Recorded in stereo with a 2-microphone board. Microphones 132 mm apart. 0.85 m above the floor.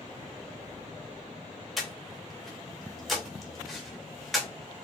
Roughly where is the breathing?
Centre.